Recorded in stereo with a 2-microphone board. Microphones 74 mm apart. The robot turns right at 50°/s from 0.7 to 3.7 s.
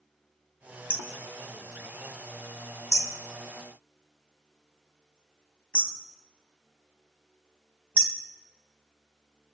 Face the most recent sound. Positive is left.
turn(degrees=15)  # may be behind; listen again after turning